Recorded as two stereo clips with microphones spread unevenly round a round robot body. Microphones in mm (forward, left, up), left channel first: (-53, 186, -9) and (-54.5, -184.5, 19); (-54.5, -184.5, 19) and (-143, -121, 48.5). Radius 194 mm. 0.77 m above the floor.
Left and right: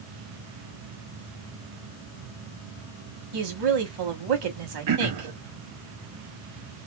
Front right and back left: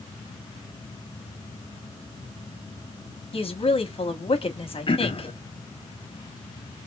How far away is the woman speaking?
About 1.2 m.